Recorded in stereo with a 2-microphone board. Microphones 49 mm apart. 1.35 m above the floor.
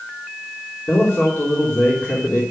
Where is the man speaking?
45° left (ahead or behind), 3.5 m.